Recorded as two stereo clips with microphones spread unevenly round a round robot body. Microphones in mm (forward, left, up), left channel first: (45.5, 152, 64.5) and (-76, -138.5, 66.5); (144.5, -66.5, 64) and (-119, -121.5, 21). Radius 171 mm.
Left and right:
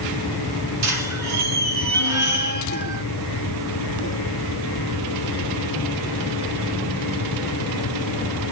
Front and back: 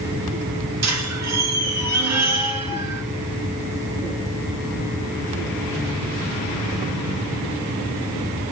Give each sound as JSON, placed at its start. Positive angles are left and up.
{"t": 0.8, "sound": "a squeak", "azimuth_deg": -150, "distance_m": 2.5}